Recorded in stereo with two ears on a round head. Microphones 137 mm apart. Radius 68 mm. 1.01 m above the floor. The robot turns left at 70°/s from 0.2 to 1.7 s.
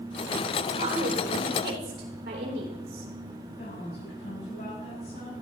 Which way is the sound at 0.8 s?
45° right (ahead or behind).